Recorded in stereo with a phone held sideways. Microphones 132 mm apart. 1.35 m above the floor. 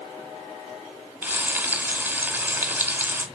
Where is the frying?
15° right (ahead or behind), 1.3 m.